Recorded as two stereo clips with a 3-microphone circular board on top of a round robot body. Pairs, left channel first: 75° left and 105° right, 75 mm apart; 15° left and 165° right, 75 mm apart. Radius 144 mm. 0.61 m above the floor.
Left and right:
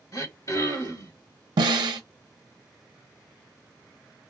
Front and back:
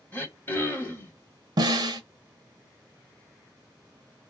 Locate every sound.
0.1 s throat clearing: 65° left, 1.6 m
1.6 s a snare drum: 135° right, 0.5 m